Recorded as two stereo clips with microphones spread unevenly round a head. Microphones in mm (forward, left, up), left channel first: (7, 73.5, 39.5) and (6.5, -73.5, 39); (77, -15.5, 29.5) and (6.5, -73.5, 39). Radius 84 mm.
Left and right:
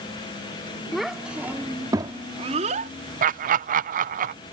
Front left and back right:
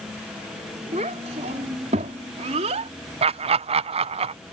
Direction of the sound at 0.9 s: Straight behind.